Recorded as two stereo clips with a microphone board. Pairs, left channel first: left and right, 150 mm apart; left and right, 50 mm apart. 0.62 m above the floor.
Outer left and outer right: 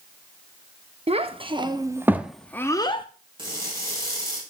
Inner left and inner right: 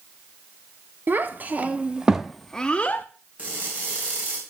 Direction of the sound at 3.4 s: 30° right (ahead or behind).